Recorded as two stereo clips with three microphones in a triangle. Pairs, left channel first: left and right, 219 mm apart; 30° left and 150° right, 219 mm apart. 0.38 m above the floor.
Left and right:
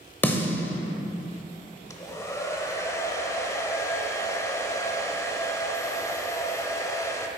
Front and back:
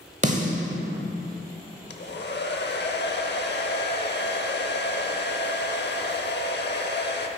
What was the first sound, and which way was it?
A snare drum, 170° left.